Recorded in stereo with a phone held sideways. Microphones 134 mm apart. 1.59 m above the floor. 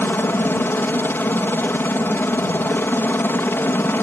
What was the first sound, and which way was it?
A helicopter, 15° left (ahead or behind).